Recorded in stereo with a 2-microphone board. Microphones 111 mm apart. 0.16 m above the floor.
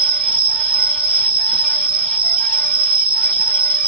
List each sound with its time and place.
0.0 s an insect: 10° right (ahead or behind), 0.8 m